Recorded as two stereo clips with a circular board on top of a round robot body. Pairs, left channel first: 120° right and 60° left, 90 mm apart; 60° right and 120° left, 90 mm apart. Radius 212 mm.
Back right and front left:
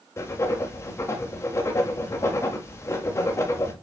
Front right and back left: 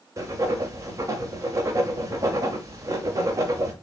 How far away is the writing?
About 0.5 m.